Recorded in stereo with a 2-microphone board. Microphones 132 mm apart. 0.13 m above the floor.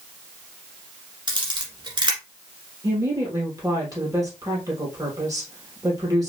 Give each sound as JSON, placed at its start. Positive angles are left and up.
{"t": 1.3, "sound": "a camera shutter", "side_deg": -35, "distance_m": 1.5}
{"t": 2.8, "sound": "a woman speaking", "side_deg": -25, "distance_m": 3.0}